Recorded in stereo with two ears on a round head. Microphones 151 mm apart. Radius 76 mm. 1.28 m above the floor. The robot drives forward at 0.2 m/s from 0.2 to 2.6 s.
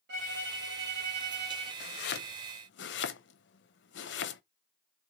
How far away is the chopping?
About 0.6 m.